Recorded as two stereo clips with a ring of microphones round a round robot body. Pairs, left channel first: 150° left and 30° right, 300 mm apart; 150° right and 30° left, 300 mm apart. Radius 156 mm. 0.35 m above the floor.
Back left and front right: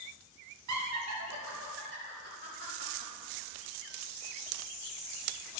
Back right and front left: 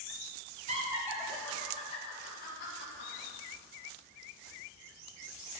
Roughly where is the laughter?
Ahead right.